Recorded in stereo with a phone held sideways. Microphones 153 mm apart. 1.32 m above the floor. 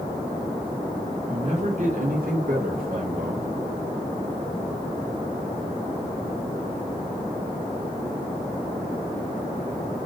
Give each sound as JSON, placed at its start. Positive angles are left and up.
{"t": 1.3, "sound": "a man speaking", "side_deg": -45, "distance_m": 1.7}